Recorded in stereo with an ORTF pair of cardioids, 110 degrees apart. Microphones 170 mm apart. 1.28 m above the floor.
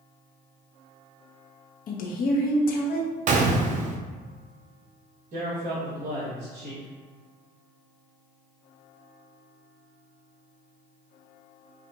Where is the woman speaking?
55° left, 1.1 m.